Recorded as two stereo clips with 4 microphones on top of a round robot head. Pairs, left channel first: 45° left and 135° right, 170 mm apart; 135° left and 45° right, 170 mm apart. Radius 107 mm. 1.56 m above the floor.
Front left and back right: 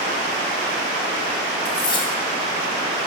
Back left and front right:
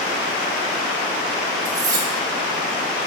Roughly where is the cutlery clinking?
Ahead.